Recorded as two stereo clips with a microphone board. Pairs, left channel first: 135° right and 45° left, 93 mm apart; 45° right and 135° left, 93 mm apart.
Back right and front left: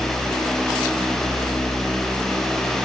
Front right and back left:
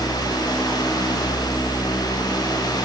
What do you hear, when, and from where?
Only background noise.